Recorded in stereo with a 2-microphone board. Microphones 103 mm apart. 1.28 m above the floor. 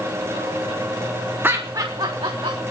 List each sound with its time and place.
1.4 s laughter: 20° right (ahead or behind), 1.3 m; by 2.6 s 65° right (ahead or behind), 2 m